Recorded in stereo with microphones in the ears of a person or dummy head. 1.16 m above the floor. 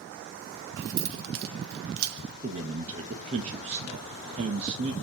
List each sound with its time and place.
0.8 s keys jangling: 50° right (ahead or behind), 0.6 m
2.4 s a man speaking: 35° right (ahead or behind), 1.0 m